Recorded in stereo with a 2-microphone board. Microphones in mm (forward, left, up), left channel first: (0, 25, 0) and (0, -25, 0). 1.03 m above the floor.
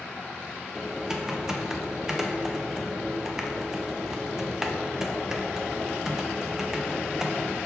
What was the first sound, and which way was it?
Typing on a keyboard, 10° right (ahead or behind).